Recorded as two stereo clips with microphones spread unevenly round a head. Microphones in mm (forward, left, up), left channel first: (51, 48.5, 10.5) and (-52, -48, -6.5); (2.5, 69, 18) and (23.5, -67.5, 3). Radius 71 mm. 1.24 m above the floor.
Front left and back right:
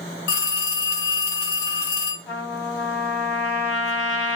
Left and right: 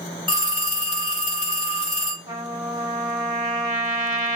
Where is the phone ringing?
30° left, 1.4 m.